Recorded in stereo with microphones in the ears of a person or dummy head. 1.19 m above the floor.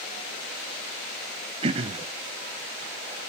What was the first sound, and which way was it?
Throat clearing, 40° right (ahead or behind).